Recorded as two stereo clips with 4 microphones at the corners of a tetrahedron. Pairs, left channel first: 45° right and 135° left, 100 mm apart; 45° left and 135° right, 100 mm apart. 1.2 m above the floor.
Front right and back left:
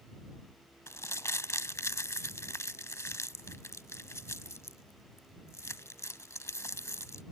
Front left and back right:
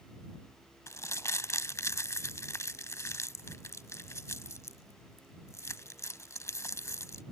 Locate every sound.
0.9 s crumpling: straight ahead